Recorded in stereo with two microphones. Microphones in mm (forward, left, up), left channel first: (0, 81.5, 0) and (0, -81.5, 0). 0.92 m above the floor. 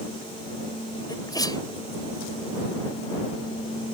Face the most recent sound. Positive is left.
turn(degrees=25)  # may be behind; listen again after turning